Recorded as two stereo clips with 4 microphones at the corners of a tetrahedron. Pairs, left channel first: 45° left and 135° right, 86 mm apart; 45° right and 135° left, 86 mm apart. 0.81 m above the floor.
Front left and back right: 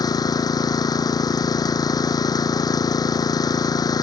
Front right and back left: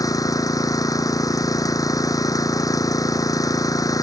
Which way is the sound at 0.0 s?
Straight ahead.